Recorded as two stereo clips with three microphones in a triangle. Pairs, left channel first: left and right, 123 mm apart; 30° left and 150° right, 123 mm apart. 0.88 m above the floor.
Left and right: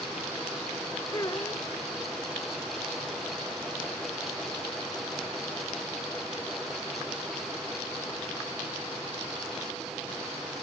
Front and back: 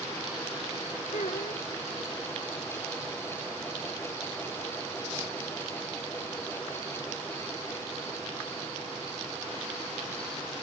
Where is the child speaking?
30° left.